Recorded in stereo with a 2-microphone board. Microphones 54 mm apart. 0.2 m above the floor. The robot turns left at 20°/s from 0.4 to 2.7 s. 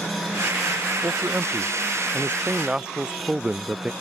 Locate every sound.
1.0 s a man speaking: 130° right; by 3.9 s 165° right